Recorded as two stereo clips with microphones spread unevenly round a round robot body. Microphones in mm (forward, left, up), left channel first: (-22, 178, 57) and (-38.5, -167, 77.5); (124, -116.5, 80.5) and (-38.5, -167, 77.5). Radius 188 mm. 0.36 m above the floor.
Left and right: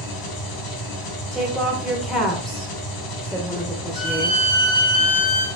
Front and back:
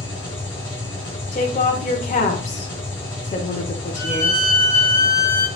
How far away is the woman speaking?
About 1.1 m.